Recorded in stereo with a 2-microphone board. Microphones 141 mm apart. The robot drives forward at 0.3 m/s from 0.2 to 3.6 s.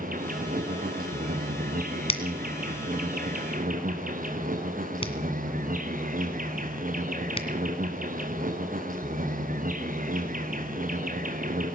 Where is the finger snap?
45° left (ahead or behind), 1.9 m; by 7.5 s 40° left (ahead or behind), 2.0 m.